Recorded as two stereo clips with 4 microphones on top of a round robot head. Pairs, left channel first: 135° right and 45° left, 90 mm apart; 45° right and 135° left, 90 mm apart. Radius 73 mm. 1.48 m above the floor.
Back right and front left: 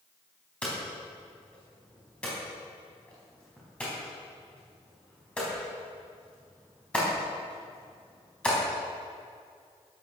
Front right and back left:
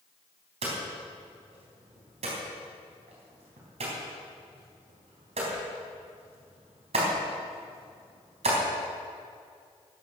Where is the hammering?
150° left, 4 m.